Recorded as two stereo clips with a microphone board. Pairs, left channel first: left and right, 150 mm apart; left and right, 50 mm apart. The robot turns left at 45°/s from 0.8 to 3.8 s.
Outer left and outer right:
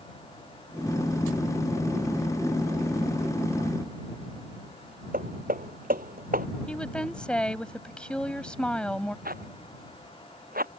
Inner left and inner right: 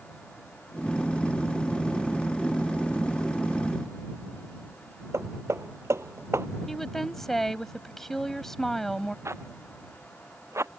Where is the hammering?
75° right (ahead or behind).